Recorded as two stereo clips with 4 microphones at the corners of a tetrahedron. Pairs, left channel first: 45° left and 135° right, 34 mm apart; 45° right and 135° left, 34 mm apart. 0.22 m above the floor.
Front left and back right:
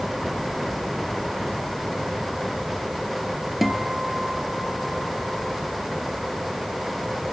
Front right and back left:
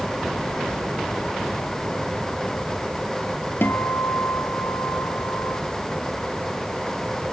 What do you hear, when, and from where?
3.6 s a guitar: 50° right, 1.3 m